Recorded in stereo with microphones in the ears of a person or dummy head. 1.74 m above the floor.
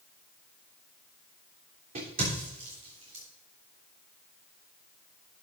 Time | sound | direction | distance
1.9 | a crack | 40° right (ahead or behind) | 3 m